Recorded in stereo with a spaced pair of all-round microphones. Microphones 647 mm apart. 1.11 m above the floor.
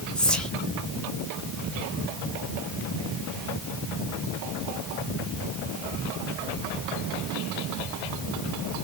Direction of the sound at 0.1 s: Centre (ahead or behind).